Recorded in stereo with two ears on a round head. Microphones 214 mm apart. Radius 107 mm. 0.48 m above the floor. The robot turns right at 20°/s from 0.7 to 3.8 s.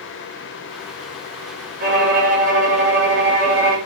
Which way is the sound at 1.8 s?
70° right.